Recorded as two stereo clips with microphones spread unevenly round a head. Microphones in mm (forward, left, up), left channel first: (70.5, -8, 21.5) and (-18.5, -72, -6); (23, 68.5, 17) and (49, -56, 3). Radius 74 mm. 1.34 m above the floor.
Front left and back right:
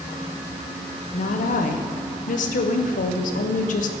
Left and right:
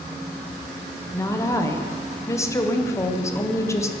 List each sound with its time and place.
1.1 s a woman speaking: 35° left, 0.6 m